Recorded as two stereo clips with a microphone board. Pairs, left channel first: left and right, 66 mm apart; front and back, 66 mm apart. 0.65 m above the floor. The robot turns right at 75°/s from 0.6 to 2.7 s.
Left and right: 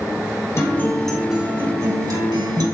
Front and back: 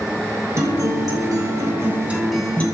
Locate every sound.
0.6 s a guitar: 135° left, 2.5 m; by 2.6 s 70° right, 2.5 m